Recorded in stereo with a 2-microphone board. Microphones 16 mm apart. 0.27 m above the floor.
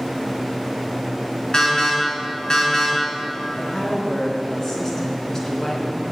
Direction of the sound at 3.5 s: 30° left (ahead or behind).